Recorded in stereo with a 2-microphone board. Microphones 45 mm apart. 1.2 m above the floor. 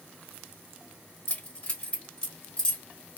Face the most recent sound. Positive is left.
turn(degrees=20)  # may be behind; listen again after turning